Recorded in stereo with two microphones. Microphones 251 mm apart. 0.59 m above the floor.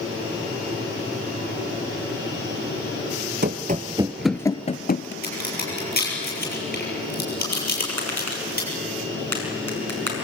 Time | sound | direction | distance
3.4 | running footsteps | 45° right (ahead or behind) | 0.7 m
5.2 | a crack | 35° left (ahead or behind) | 7.5 m
7.9 | tapping | 75° right (ahead or behind) | 5.5 m